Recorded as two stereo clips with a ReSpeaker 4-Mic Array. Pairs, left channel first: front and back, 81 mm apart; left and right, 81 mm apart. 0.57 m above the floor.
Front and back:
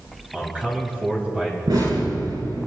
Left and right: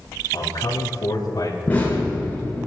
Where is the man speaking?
110° left, 4 m.